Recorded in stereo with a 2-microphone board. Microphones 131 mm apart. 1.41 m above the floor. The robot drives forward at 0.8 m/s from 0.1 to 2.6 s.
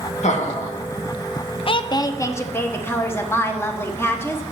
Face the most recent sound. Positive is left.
turn(degrees=20)  # may be behind; listen again after turning